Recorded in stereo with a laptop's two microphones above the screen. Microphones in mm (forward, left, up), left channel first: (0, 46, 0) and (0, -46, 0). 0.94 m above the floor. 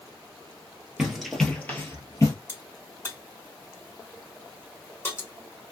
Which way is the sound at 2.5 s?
25° left (ahead or behind).